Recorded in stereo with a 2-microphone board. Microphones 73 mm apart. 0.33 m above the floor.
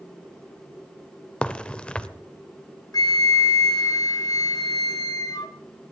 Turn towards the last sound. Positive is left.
turn(degrees=55)  # may be behind; listen again after turning